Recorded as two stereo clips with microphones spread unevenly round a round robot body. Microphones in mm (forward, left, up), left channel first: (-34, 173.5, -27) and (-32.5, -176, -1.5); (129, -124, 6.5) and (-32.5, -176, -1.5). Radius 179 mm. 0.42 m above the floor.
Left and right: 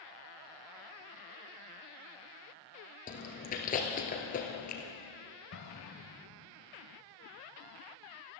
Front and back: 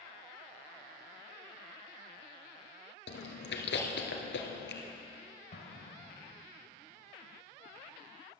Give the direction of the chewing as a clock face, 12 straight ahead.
11 o'clock.